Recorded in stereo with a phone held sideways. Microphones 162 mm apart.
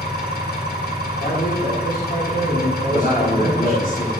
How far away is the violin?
I don't hear a violin.